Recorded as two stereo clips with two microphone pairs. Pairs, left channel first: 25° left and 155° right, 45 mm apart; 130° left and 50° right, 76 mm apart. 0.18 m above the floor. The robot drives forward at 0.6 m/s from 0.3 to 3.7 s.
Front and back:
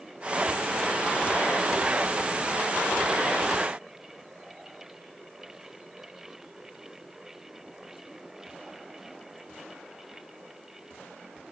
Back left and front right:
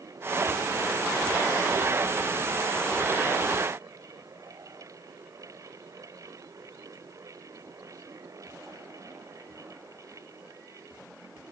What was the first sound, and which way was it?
Only background noise.